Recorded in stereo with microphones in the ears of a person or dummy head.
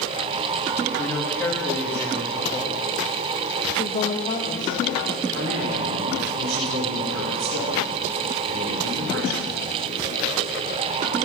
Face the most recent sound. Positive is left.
turn(degrees=-60)  # may be behind; listen again after turning